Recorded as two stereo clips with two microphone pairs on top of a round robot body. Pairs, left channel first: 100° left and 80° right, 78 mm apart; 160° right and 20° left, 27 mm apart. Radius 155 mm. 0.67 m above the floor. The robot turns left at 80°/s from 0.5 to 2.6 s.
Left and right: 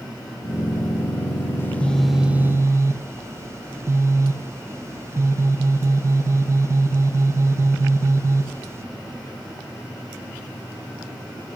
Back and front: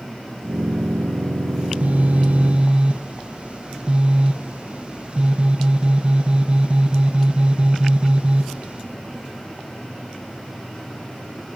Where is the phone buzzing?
60° left, 0.5 m; by 8.8 s 20° right, 0.5 m.